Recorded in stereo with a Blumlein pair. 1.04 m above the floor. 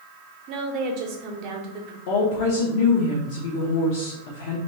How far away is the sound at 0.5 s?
About 0.7 m.